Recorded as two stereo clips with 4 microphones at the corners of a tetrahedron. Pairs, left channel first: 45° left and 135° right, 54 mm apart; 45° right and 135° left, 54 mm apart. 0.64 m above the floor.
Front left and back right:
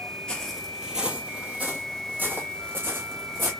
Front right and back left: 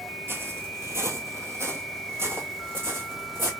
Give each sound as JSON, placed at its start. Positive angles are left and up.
{"t": 0.3, "sound": "footsteps", "azimuth_deg": 115, "distance_m": 0.8}